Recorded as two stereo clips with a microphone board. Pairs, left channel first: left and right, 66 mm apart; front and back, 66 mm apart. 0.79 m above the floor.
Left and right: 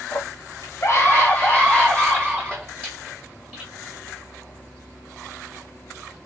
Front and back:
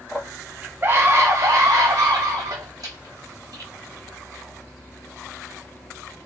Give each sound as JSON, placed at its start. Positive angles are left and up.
{"t": 0.1, "sound": "a scream", "azimuth_deg": 100, "distance_m": 0.8}